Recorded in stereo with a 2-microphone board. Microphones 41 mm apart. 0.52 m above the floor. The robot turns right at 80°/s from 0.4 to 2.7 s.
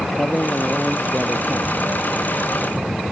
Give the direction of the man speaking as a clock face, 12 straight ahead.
7 o'clock.